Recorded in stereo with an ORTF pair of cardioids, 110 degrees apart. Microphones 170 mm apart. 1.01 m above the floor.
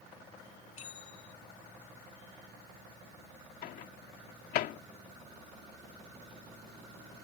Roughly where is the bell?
Ahead left.